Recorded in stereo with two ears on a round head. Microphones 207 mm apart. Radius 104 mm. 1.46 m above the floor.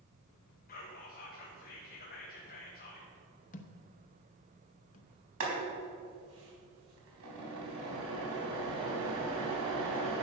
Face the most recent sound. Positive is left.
turn(degrees=-70)  # may be behind; listen again after turning